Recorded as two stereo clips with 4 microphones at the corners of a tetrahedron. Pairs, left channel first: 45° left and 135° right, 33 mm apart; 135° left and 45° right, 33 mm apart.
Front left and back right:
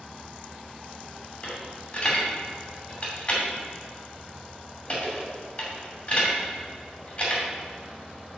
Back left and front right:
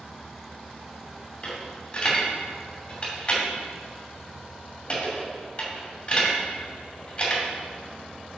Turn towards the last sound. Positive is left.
turn(degrees=85)